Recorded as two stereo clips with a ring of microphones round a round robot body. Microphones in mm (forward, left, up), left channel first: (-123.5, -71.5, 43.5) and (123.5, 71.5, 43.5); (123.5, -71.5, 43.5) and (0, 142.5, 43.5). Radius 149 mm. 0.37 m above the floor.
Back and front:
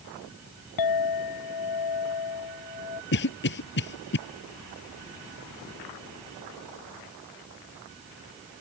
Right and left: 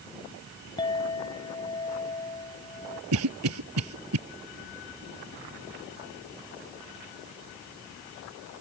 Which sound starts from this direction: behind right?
A clink, at 0.8 s.